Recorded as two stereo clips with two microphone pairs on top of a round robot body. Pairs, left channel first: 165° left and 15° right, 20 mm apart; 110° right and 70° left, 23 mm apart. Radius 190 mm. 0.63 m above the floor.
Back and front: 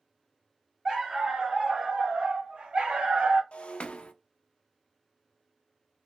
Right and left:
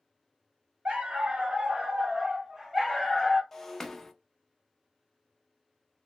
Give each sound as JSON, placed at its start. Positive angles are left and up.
{"t": 0.8, "sound": "a dog barking", "azimuth_deg": 50, "distance_m": 1.2}
{"t": 3.5, "sound": "breaking glass", "azimuth_deg": 175, "distance_m": 0.5}